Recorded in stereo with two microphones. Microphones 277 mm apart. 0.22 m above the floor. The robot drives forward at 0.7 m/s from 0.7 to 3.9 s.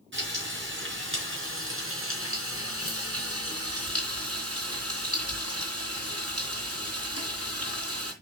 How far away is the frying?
About 4 m.